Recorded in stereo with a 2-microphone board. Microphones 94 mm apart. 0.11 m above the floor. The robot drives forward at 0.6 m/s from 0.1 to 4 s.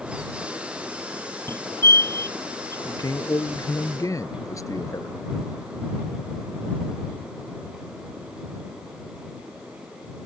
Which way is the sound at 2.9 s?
40° left (ahead or behind).